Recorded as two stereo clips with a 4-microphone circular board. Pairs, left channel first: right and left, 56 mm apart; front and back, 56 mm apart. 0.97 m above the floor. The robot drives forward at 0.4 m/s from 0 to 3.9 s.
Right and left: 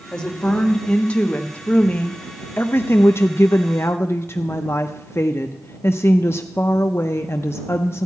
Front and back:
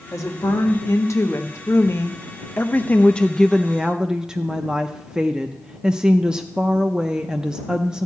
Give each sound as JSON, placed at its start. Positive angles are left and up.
{"t": 0.1, "sound": "a woman speaking", "azimuth_deg": -15, "distance_m": 1.5}